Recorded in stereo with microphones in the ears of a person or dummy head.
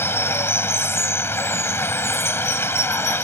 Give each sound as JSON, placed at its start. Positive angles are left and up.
{"t": 0.0, "sound": "running water", "side_deg": 5}